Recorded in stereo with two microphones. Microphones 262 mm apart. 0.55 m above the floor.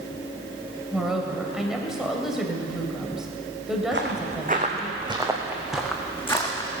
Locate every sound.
0.9 s a woman speaking: centre (ahead or behind), 2.5 m
3.9 s footsteps: 45° right (ahead or behind), 2.5 m; by 6.7 s 15° left (ahead or behind), 3 m